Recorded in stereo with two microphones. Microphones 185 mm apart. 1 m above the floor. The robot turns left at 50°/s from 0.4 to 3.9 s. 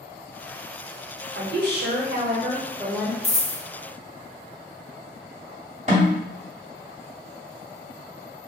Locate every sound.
1.4 s a woman speaking: 80° right, 0.8 m; by 3.1 s 170° right, 0.8 m
3.2 s a dropped coin: 35° left (ahead or behind), 0.6 m; by 3.6 s 25° left (ahead or behind), 0.6 m
5.9 s a snare drum: 40° right (ahead or behind), 1.4 m